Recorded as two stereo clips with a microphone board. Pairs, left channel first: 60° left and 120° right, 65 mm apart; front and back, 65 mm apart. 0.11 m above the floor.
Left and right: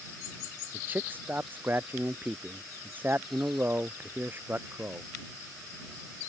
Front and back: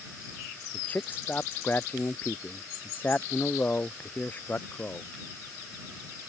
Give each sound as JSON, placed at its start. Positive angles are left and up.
{"t": 0.7, "sound": "a man speaking", "azimuth_deg": -60}